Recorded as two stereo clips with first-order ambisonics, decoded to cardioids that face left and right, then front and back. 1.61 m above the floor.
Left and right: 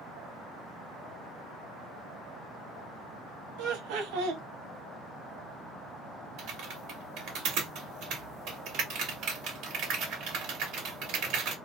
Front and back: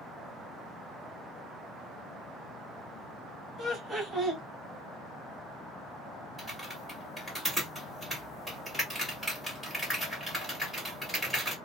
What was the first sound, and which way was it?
Laughter, 100° right.